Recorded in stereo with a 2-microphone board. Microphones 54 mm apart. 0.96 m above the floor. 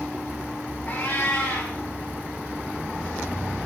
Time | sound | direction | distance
0.9 | a cat meowing | 25° left (ahead or behind) | 9 m